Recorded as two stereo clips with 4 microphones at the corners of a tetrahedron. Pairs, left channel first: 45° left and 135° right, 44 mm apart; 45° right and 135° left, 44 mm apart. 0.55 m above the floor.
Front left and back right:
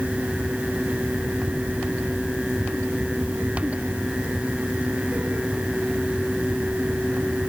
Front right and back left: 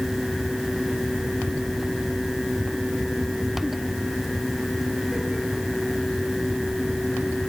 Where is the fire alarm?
I don't hear a fire alarm.